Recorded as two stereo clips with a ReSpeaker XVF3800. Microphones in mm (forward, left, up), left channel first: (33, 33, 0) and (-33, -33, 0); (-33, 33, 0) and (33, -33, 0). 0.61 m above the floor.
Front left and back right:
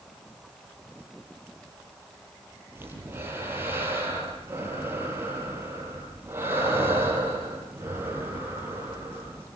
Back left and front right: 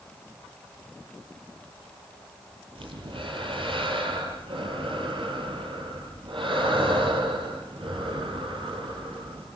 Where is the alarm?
No alarm in this recording.